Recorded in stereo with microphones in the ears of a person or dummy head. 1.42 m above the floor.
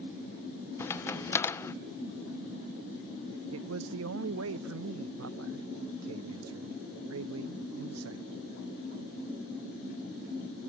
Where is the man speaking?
75° right (ahead or behind).